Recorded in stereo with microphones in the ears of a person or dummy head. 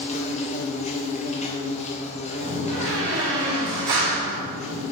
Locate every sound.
0.0 s an insect: 35° left (ahead or behind), 1.3 m
2.4 s a door slam: 70° right (ahead or behind), 3.5 m